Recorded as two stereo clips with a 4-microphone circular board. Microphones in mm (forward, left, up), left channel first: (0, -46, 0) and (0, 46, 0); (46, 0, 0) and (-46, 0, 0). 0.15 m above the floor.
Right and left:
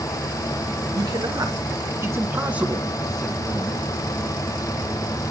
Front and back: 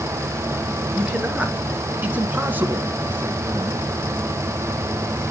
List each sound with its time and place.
0.9 s a man speaking: 105° left, 2.5 m; by 3.9 s 125° right, 1.7 m